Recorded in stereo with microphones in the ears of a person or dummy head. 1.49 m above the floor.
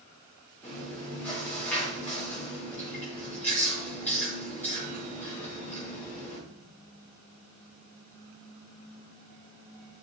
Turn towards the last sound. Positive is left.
turn(degrees=10)  # may be behind; listen again after turning